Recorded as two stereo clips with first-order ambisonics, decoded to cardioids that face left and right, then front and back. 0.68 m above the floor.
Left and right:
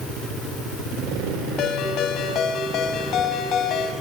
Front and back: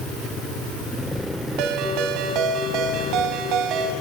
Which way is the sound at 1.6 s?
140° left.